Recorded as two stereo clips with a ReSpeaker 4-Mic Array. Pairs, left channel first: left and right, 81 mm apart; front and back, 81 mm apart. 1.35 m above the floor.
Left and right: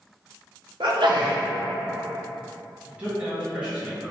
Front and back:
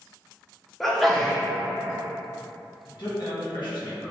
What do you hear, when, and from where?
0.8 s a sneeze: 90° right, 0.8 m
2.9 s a man speaking: 15° right, 1.6 m